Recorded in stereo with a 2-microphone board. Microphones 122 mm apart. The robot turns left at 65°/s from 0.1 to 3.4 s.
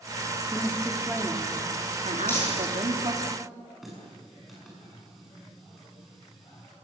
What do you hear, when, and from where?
0.5 s a woman speaking: 25° left, 2.5 m; by 3.3 s 155° right, 2.5 m
2.3 s crumpling: 20° left (ahead or behind), 7.5 m; by 2.8 s 50° left (ahead or behind), 7.5 m
3.8 s a running tap: centre (ahead or behind), 6.5 m